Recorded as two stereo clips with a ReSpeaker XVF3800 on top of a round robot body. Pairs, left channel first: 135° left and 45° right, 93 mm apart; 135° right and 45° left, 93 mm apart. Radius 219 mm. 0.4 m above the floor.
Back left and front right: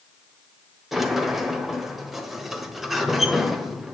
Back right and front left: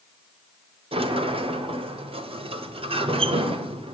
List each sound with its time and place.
0.9 s a sliding door: 45° left, 1.4 m